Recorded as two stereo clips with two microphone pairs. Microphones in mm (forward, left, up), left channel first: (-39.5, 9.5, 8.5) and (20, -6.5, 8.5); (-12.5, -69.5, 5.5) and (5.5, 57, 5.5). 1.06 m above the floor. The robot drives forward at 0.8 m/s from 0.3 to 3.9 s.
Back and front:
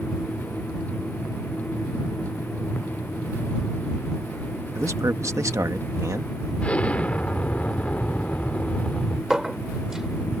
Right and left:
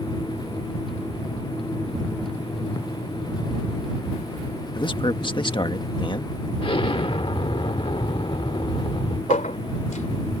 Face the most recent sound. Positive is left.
turn(degrees=-100)